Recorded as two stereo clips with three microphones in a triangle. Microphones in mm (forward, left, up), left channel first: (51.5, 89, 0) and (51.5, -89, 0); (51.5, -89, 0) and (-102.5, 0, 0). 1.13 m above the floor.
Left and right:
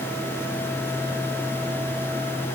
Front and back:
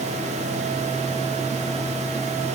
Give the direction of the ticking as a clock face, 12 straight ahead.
I don't hear ticking.